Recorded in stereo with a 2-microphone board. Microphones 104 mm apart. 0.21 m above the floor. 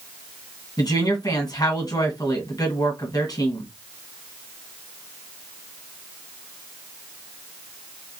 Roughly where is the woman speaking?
Left.